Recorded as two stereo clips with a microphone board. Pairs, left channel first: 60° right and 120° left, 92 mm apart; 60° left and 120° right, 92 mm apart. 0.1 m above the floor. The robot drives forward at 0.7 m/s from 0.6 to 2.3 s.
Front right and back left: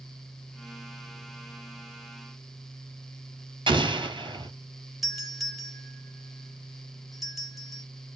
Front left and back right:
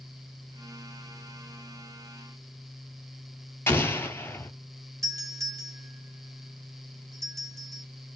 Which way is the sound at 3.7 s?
125° left.